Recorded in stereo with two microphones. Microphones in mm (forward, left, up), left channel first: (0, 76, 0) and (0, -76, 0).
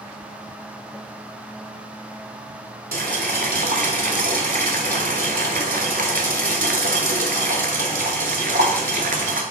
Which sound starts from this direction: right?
Boiling, at 2.9 s.